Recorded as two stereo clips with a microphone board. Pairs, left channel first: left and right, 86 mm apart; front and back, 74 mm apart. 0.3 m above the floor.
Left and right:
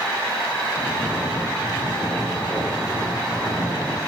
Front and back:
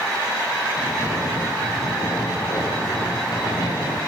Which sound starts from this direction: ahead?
Snoring, at 0.8 s.